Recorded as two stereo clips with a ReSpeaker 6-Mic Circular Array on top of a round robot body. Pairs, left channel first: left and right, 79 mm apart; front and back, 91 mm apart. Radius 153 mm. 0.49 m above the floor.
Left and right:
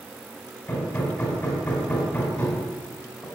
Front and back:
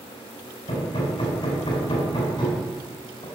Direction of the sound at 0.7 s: 25° left.